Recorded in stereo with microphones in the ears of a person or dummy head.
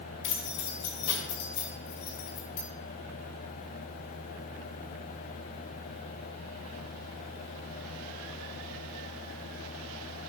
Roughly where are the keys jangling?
Left.